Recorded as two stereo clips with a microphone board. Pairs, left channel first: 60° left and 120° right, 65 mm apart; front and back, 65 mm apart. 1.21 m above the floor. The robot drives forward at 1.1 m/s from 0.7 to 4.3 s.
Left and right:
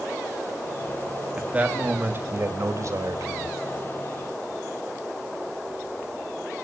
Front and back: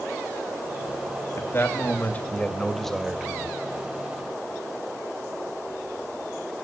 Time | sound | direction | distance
1.4 | a man speaking | 50° right | 3 m